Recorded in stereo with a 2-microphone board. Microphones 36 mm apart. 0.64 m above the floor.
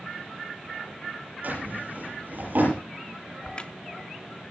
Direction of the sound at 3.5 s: 30° left (ahead or behind).